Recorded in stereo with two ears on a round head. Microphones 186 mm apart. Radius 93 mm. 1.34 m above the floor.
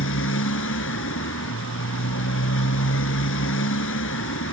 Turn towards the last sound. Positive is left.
turn(degrees=70)  # may be behind; listen again after turning